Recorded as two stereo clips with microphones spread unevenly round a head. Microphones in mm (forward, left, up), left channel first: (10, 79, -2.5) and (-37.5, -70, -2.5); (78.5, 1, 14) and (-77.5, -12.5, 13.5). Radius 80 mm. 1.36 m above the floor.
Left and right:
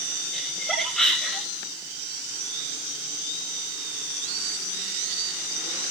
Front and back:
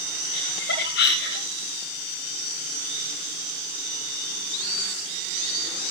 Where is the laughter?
20° right, 8 m.